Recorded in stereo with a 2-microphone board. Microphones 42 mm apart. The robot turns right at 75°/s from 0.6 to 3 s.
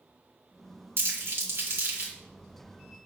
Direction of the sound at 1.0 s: 60° right (ahead or behind).